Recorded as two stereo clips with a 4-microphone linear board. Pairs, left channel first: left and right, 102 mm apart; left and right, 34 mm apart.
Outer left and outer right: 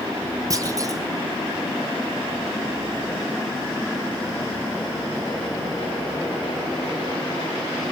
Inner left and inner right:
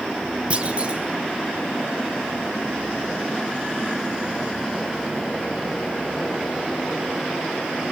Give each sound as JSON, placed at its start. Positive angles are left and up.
{"t": 0.5, "sound": "a clunk", "side_deg": -35, "distance_m": 1.7}